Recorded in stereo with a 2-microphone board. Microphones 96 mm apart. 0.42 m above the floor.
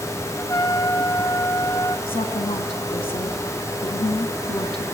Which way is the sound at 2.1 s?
75° left (ahead or behind).